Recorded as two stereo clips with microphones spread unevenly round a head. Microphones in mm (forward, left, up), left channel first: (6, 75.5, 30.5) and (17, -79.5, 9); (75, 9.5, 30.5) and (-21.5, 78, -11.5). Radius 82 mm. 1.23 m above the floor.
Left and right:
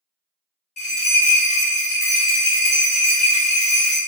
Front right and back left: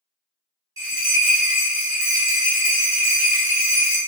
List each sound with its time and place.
0.8 s a bell: 70° left, 1.5 m